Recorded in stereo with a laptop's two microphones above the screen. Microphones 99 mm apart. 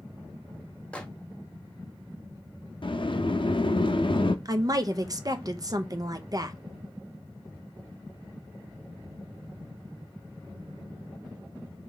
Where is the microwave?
10° left (ahead or behind), 0.8 m.